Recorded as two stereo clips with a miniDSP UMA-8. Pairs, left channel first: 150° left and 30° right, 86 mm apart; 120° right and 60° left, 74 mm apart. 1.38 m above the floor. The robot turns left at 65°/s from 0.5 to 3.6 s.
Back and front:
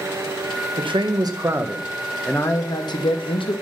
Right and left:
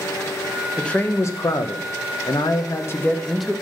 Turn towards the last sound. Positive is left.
turn(degrees=135)